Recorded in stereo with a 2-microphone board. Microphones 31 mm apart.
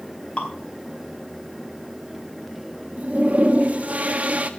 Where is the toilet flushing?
45° right (ahead or behind), 1.3 m.